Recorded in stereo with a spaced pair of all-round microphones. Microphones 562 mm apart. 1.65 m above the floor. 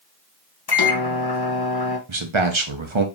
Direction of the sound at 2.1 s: 55° right (ahead or behind).